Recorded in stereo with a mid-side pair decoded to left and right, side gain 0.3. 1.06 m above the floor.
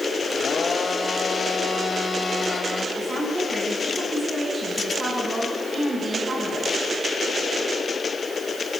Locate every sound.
0.3 s a blender: 55° left, 2.5 m
3.0 s a woman speaking: 45° right, 9 m